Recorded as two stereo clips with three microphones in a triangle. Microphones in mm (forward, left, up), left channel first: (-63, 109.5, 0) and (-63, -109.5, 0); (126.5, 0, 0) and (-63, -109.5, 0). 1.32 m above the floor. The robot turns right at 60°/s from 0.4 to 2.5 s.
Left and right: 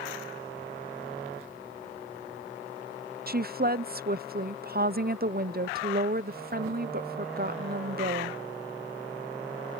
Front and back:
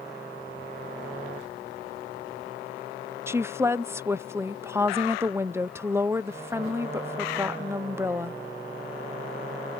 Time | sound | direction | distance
3.3 | a woman speaking | 75° right | ?